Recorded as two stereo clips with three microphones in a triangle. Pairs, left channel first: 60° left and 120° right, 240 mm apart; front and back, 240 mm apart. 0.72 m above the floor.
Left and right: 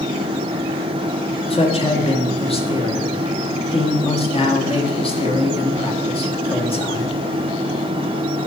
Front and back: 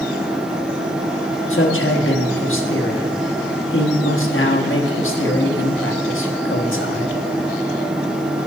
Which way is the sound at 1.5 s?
5° right.